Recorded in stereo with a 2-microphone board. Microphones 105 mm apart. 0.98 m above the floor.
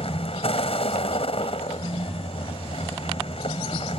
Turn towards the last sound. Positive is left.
turn(degrees=70)  # may be behind; listen again after turning